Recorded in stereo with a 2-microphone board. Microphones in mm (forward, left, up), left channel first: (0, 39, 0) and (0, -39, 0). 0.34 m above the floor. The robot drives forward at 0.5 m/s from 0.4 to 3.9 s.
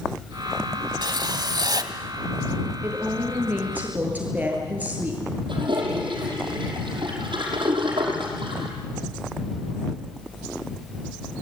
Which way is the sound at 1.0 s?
60° right (ahead or behind).